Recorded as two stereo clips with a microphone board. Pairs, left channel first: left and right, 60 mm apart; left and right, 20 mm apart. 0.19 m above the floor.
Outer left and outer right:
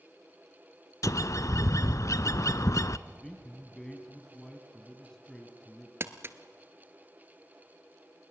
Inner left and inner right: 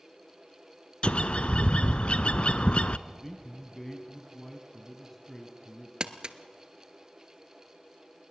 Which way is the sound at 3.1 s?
10° left (ahead or behind).